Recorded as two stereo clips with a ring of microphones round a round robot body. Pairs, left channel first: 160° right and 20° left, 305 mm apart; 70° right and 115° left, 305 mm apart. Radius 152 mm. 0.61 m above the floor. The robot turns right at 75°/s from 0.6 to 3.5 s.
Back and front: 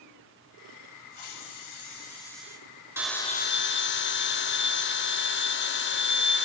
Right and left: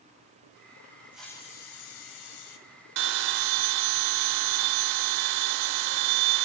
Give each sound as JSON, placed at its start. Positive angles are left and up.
{"t": 1.1, "sound": "a hiss", "azimuth_deg": -165, "distance_m": 2.0}
{"t": 3.0, "sound": "a bell", "azimuth_deg": 105, "distance_m": 0.8}